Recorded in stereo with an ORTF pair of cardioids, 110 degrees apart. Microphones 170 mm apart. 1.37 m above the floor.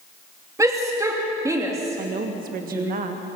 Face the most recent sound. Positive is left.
turn(degrees=-55)